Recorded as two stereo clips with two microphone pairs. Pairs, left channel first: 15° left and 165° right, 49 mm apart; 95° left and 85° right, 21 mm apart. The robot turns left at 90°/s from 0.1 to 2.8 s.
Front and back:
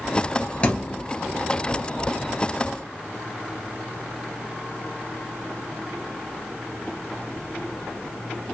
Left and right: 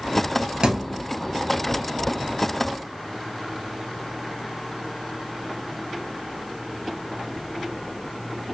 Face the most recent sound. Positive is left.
turn(degrees=115)